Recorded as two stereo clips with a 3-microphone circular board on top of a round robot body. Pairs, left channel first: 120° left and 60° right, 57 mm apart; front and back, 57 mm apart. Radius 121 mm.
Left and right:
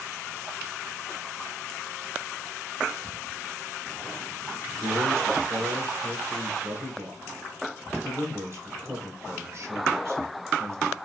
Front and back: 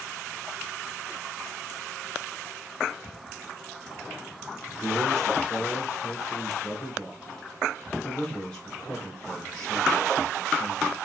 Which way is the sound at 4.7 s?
75° right.